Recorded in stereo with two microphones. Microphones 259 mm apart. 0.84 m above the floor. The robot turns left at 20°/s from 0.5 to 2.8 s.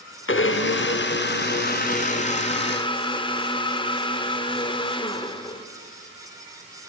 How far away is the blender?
About 0.6 m.